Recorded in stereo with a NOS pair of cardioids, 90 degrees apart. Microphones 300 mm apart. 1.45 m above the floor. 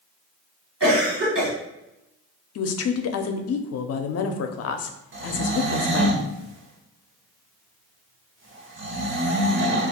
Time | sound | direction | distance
0.8 | a cough | 40° right | 1.7 m
2.5 | a woman speaking | 55° left | 0.6 m
5.1 | snoring | 40° right | 0.9 m